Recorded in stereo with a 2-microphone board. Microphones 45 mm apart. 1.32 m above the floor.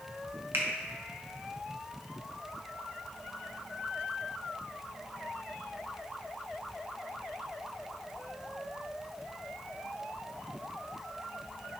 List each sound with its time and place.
0.5 s a finger snap: 65° right (ahead or behind), 1.3 m